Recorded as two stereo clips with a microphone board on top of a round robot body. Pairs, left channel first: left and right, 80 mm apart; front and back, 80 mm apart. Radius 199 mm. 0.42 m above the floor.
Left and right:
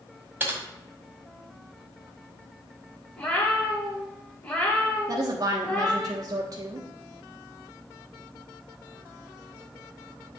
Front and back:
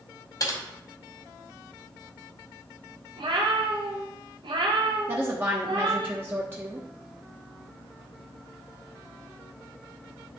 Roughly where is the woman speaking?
Behind right.